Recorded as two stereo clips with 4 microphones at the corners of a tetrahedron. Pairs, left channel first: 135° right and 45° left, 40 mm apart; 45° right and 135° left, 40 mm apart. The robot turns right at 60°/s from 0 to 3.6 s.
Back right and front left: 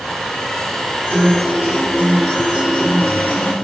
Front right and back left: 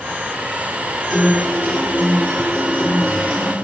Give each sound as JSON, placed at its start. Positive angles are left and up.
{"t": 1.1, "sound": "a guitar", "azimuth_deg": 60, "distance_m": 3.0}